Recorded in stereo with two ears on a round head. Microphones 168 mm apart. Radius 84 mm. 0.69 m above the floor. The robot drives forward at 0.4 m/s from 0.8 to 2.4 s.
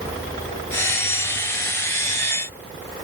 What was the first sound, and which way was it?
Only background noise.